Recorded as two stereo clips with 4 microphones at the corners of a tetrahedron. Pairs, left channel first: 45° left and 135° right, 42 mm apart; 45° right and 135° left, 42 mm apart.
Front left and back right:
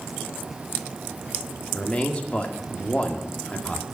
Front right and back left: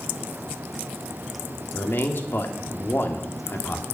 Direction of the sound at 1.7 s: 20° right.